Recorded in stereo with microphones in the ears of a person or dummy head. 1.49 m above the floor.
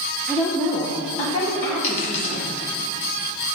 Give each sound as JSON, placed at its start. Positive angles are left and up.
{"t": 0.3, "sound": "a woman speaking", "side_deg": 0, "distance_m": 0.8}
{"t": 1.8, "sound": "a dropped coin", "side_deg": 35, "distance_m": 1.4}